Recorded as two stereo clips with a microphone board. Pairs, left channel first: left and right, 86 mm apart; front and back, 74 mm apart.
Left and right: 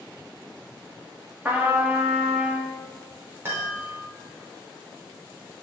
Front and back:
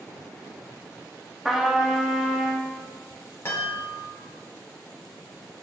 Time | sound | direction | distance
1.4 | a trumpet | 105° right | 1.2 m
3.5 | a chime | 40° right | 2.0 m